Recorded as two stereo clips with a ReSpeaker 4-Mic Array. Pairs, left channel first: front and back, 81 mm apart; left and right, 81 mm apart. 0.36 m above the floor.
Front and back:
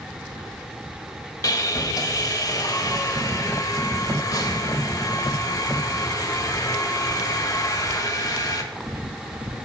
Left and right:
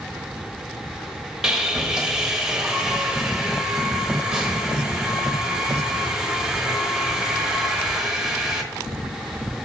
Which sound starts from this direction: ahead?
Sawing, at 1.4 s.